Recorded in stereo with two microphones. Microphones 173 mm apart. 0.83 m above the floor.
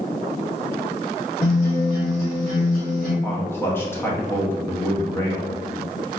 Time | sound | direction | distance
1.4 | a guitar | 60° left (ahead or behind) | 1.6 m
3.2 | a man speaking | 15° left (ahead or behind) | 0.7 m